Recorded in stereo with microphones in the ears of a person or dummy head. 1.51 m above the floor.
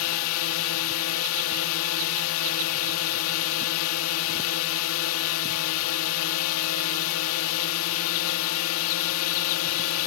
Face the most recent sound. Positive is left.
turn(degrees=85)